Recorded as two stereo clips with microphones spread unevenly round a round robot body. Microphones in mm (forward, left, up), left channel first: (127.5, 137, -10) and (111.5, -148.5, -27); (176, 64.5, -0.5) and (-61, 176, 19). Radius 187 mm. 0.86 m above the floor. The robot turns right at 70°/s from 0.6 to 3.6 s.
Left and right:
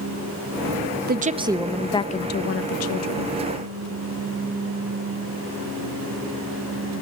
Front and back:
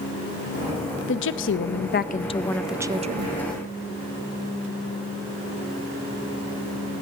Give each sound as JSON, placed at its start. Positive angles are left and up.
{"t": 1.1, "sound": "a woman speaking", "azimuth_deg": -50, "distance_m": 0.6}